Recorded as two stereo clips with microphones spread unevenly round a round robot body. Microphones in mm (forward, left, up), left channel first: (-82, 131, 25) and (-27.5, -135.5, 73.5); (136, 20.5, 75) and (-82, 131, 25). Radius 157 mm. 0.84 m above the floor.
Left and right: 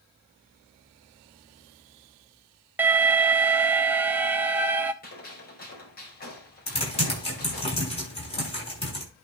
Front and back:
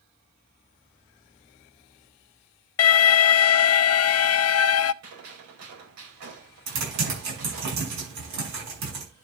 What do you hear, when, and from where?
2.8 s an alarm: 10° left, 0.5 m
5.0 s a gunshot: 155° left, 4.5 m
6.7 s typing on a keyboard: 170° left, 7 m